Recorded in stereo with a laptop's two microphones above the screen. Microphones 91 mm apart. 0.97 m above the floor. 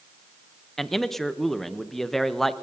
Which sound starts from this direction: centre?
A man speaking, at 0.8 s.